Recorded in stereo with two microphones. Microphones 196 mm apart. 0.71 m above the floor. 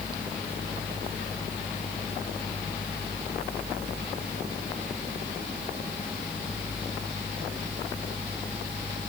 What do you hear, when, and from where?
Only background noise.